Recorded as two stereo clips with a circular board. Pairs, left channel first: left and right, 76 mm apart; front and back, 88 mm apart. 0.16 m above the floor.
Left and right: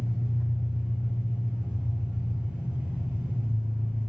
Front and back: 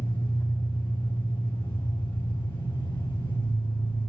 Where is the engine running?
15° right, 3.5 m.